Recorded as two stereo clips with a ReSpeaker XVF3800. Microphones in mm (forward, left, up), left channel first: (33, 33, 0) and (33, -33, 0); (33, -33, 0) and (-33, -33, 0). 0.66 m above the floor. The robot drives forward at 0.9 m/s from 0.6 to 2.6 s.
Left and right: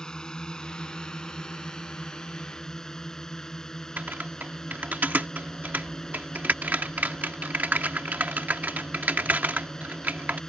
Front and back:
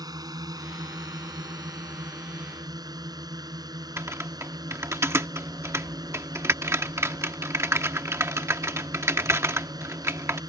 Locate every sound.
0.0 s a drone: 165° left; by 10.5 s 170° left
4.0 s typing on a keyboard: 145° right